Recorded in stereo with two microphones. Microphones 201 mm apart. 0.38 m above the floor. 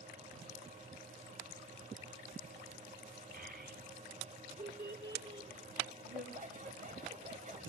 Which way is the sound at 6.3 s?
40° right (ahead or behind).